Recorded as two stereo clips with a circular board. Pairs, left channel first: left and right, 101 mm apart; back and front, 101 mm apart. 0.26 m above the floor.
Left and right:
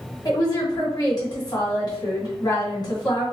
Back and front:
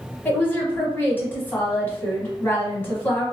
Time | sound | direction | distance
0.2 | a woman speaking | 120° left | 1.7 m